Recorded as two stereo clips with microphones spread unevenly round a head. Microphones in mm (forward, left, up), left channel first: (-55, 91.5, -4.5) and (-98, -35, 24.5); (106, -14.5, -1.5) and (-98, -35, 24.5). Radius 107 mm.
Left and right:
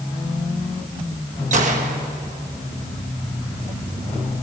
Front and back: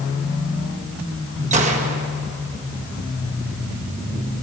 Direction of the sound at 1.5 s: 120° right.